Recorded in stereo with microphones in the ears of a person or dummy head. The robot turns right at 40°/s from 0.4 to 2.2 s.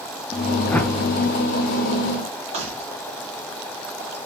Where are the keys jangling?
35° right (ahead or behind), 1.9 m.